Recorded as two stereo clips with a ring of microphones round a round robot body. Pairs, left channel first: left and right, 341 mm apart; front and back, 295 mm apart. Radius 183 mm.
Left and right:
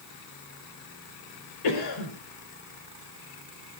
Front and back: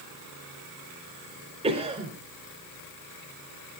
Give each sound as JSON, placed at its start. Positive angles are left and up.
{"t": 1.6, "sound": "a cough", "azimuth_deg": 110, "distance_m": 4.0}